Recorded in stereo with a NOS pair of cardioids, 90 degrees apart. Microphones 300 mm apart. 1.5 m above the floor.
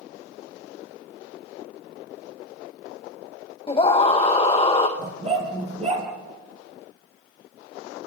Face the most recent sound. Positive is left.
turn(degrees=-20)